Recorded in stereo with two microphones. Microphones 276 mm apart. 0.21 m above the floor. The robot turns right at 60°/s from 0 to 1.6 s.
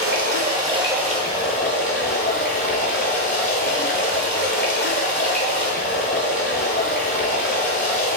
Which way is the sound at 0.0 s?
55° right.